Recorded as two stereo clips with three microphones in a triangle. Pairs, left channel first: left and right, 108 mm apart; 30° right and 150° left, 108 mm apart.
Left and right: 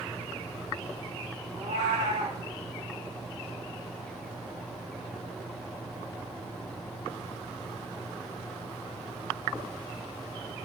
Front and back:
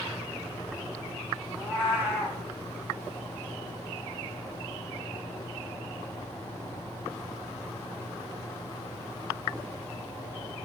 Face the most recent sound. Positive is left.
turn(degrees=-115)